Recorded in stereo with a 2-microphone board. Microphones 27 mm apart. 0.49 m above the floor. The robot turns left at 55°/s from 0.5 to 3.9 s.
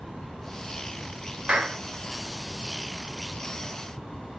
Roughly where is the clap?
Right.